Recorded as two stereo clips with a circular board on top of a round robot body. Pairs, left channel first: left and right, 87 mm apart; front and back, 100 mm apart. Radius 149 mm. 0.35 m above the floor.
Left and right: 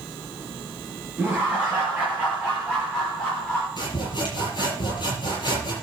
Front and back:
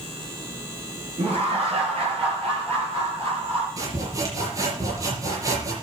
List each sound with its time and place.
1.2 s laughter: 170° right, 6 m; by 3.7 s straight behind, 7 m
3.8 s sawing: 125° left, 7.5 m